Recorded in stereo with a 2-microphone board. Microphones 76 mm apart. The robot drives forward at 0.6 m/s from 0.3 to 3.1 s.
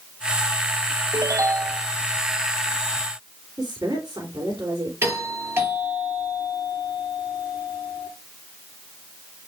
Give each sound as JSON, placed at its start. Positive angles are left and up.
{"t": 1.1, "sound": "a ringtone", "side_deg": -40, "distance_m": 0.6}
{"t": 3.6, "sound": "a woman speaking", "side_deg": -55, "distance_m": 3.5}
{"t": 5.0, "sound": "a doorbell", "side_deg": -30, "distance_m": 6.5}